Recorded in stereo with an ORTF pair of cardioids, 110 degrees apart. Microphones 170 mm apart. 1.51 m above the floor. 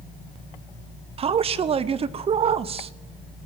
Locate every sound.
1.2 s a man speaking: 35° right, 0.6 m